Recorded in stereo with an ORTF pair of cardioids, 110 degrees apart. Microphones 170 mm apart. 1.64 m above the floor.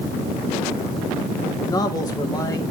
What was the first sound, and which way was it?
A man speaking, 25° left.